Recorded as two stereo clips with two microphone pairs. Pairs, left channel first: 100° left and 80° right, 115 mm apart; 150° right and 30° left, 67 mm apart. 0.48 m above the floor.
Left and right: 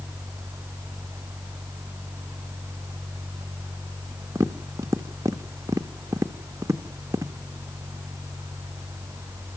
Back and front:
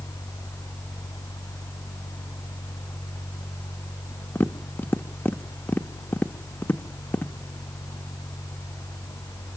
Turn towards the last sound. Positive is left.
turn(degrees=-120)